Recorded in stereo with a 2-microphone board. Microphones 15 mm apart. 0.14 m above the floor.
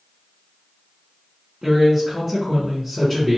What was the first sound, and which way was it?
A man speaking, 10° right (ahead or behind).